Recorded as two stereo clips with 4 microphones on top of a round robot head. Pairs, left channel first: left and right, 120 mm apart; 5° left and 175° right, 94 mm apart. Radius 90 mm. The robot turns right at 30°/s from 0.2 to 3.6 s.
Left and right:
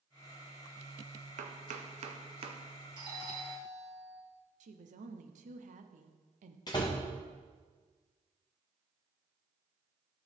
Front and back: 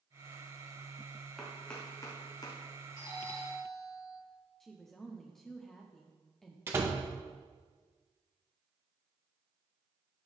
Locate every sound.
1.4 s chopping: 90° right, 0.8 m; by 2.6 s 50° right, 0.8 m
3.0 s a doorbell: 45° right, 2.5 m; by 4.2 s 25° right, 2.5 m
4.6 s a woman speaking: 85° right, 0.8 m
6.7 s a door slam: 140° left, 0.8 m